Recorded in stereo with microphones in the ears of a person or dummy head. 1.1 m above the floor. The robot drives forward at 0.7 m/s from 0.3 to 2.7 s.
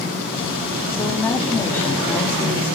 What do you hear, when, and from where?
0.9 s a woman speaking: 15° left (ahead or behind), 2 m; by 2.8 s 10° left (ahead or behind), 3.5 m